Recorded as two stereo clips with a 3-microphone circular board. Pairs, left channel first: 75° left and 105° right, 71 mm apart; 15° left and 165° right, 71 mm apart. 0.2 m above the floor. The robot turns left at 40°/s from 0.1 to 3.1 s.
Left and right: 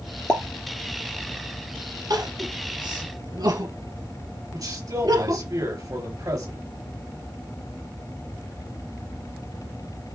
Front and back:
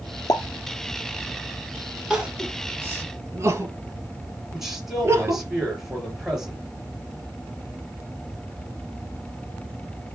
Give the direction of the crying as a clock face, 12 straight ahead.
2 o'clock.